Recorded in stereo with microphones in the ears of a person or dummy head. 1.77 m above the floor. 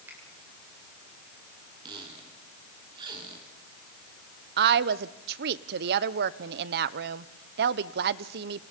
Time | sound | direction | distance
0.1 | a finger snap | 15° right (ahead or behind) | 8 m
1.9 | a squeak | 30° right (ahead or behind) | 3 m
4.6 | a woman speaking | 60° right (ahead or behind) | 0.9 m